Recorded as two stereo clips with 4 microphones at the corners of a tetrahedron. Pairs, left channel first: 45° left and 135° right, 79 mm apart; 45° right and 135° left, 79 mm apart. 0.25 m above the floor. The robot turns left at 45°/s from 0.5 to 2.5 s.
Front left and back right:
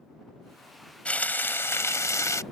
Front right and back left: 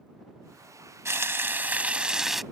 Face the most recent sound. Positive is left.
turn(degrees=45)